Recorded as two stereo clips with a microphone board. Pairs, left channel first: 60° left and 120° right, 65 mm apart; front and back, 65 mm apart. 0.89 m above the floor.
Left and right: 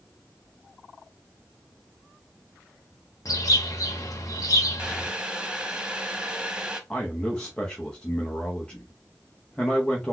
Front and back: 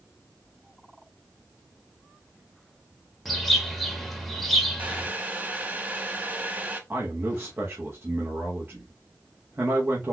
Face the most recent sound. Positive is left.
turn(degrees=130)